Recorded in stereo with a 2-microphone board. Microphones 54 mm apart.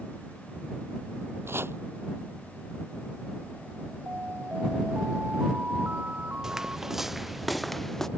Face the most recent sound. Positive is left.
turn(degrees=5)  # may be behind; listen again after turning